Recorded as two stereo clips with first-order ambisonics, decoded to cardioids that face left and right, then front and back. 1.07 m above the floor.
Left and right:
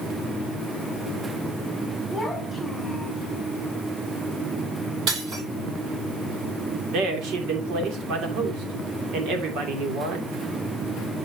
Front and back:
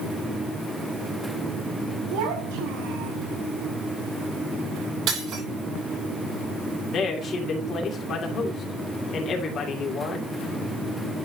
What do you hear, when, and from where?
2.1 s a child speaking: 175° right, 5.5 m
5.1 s breaking glass: 130° right, 6.5 m
6.9 s a man speaking: 55° right, 2.5 m